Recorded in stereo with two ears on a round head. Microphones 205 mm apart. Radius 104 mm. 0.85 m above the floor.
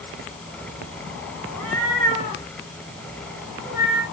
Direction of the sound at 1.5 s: 10° left (ahead or behind).